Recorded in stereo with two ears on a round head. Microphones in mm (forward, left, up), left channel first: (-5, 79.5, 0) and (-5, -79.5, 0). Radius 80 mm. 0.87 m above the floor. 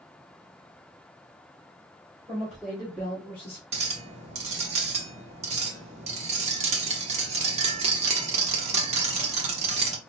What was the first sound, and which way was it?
A woman speaking, 5° right (ahead or behind).